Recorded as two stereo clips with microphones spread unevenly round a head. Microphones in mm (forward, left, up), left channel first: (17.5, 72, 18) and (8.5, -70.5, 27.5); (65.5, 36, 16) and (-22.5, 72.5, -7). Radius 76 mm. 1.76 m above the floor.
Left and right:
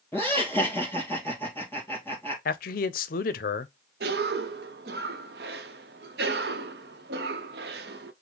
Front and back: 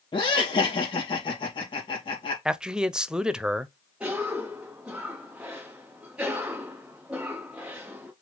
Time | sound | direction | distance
0.1 | laughter | 5° left | 3 m
2.5 | a man speaking | 65° left | 0.5 m
4.0 | a cough | 115° right | 0.8 m